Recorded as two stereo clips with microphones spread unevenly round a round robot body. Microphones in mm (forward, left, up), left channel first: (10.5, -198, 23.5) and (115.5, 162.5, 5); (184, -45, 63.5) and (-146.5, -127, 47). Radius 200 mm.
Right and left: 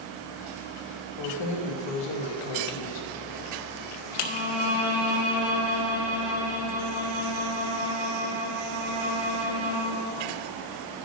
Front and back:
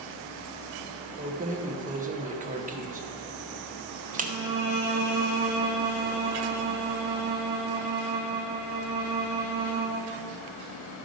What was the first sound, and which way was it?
Keys jangling, 100° right.